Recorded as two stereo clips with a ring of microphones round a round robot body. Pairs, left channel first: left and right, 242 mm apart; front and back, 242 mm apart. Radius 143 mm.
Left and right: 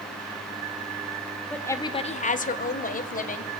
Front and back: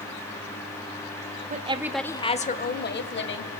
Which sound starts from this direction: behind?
A woman speaking, at 1.5 s.